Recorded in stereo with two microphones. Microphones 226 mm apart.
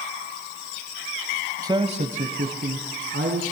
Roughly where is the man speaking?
Centre.